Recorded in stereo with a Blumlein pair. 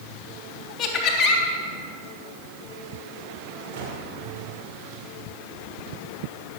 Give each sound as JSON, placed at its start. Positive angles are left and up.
{"t": 0.8, "sound": "laughter", "azimuth_deg": 25, "distance_m": 3.5}
{"t": 3.7, "sound": "a gunshot", "azimuth_deg": -40, "distance_m": 4.0}